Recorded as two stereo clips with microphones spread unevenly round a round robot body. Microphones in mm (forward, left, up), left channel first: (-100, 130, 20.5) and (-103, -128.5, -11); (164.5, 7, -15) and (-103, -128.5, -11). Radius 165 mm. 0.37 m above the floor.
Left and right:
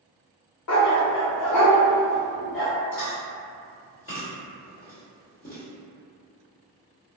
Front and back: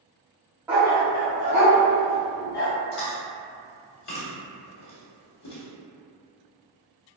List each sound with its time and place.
0.7 s a dog barking: 125° left, 0.6 m; by 2.7 s 40° left, 1.2 m
2.9 s chewing: 35° left, 1.0 m